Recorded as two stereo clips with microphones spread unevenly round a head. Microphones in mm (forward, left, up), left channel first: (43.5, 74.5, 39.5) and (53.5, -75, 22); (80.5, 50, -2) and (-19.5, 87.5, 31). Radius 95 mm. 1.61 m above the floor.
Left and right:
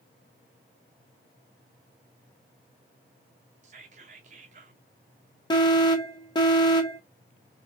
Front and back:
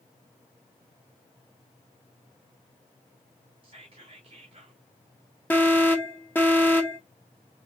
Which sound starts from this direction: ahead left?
An alarm, at 5.5 s.